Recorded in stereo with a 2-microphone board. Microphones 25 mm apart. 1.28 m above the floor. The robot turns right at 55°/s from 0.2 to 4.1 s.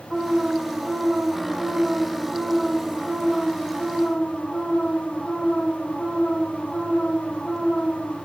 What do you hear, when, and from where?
0.1 s an alarm: 140° right, 4 m; by 8.2 s 75° left, 4 m